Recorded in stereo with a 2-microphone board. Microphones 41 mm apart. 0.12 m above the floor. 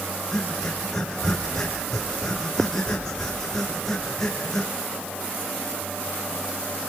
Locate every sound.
0.3 s breathing: 10° left (ahead or behind), 5.5 m